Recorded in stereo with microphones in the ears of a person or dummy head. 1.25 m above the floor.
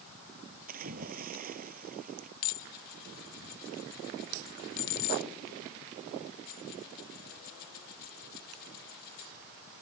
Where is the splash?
45° right (ahead or behind).